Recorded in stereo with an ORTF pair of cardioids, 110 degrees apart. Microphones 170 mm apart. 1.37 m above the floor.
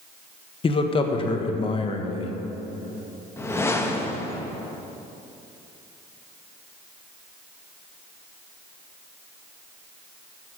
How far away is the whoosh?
About 1.3 m.